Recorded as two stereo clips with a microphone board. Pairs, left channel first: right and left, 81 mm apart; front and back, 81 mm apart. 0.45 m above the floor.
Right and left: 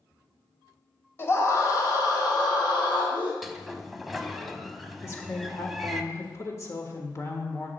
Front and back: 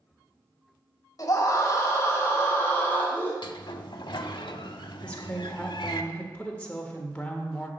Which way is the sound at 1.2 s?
35° right.